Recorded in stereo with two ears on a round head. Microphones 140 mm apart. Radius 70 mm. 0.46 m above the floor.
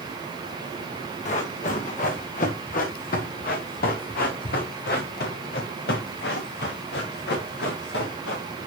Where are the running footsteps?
50° left (ahead or behind), 4.5 m; by 8.4 s 85° left, 6.5 m.